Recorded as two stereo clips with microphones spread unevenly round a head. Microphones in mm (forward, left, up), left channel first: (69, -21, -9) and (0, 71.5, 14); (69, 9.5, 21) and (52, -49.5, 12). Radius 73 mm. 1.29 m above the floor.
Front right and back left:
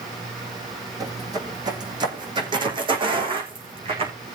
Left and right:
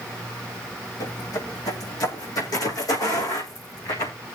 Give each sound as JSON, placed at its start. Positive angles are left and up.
{"t": 1.0, "sound": "footsteps", "azimuth_deg": 75, "distance_m": 3.0}